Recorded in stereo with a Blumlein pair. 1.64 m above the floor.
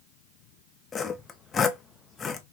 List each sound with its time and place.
0.9 s sawing: 20° left, 0.6 m